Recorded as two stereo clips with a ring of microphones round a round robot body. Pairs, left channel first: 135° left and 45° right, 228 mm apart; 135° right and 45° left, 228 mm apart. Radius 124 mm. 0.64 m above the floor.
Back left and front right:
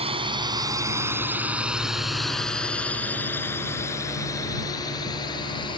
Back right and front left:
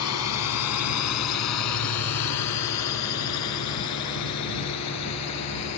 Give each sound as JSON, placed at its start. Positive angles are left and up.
{"t": 0.0, "sound": "a drone", "azimuth_deg": -115}